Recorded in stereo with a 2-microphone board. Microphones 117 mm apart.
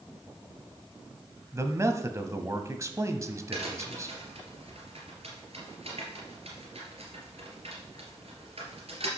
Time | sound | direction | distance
1.5 | a man speaking | 25° right (ahead or behind) | 1.1 m
3.5 | a crack | 65° right (ahead or behind) | 3 m